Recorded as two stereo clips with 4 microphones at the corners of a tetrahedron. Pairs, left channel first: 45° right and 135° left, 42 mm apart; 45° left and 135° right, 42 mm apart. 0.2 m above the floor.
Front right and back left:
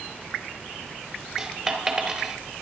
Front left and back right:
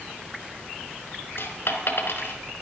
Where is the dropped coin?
55° left, 1.4 m.